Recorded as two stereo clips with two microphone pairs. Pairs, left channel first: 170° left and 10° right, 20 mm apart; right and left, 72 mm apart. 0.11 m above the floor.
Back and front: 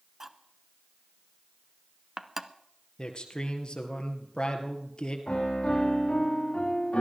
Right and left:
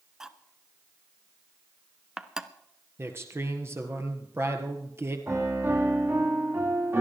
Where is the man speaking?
135° left, 2 m.